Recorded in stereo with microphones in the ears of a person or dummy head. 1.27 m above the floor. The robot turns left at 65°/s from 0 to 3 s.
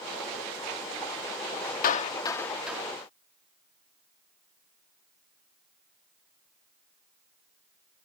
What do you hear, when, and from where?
1.8 s a clap: 50° left (ahead or behind); by 2.8 s 10° right (ahead or behind)